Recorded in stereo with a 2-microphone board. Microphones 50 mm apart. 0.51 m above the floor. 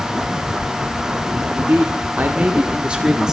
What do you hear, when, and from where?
1.6 s a man speaking: 45° right (ahead or behind), 1.4 m; by 3.3 s 10° right (ahead or behind), 1.3 m